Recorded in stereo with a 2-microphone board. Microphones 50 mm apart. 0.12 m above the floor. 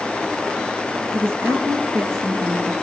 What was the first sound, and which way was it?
A woman speaking, 60° right (ahead or behind).